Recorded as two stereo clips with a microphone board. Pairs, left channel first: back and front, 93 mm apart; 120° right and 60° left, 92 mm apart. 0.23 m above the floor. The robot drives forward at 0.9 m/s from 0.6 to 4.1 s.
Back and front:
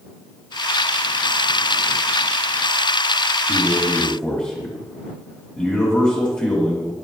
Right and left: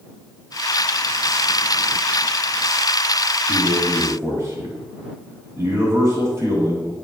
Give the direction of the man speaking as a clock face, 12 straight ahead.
9 o'clock.